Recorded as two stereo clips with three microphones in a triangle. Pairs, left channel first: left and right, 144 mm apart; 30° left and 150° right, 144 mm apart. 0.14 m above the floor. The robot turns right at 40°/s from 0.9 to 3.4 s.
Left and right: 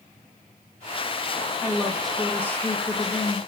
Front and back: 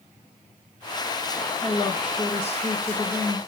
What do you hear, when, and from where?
1.6 s a woman speaking: 20° right, 2 m; by 3.4 s 50° left, 2 m